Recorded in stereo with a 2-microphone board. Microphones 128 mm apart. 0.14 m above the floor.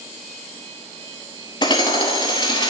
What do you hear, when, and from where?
1.6 s hammering: 35° left (ahead or behind), 0.8 m